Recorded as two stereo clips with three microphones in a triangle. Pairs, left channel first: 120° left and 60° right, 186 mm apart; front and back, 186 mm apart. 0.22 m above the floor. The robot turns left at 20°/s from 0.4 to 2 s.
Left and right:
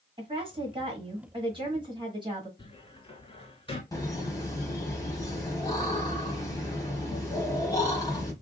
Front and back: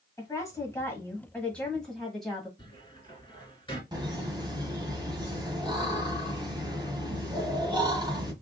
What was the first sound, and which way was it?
A woman speaking, 55° right.